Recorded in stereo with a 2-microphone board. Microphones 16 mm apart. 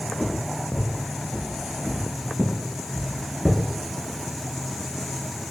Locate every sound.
0.2 s footsteps: centre (ahead or behind), 1.7 m; by 3.6 s 30° right (ahead or behind), 0.7 m